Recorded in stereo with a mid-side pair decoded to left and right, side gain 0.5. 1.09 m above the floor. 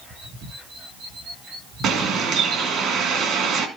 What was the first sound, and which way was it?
A bird, 65° right.